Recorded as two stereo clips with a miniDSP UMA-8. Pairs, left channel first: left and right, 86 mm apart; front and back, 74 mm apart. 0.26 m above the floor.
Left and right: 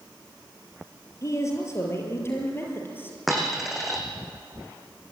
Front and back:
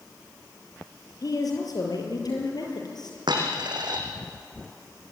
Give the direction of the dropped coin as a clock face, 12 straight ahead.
6 o'clock.